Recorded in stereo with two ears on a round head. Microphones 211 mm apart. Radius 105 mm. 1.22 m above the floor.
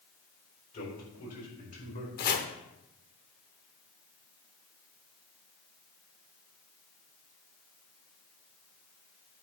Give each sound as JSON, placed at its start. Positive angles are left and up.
{"t": 0.7, "sound": "a man speaking", "side_deg": 40, "distance_m": 4.5}
{"t": 2.2, "sound": "chopping", "side_deg": 40, "distance_m": 1.0}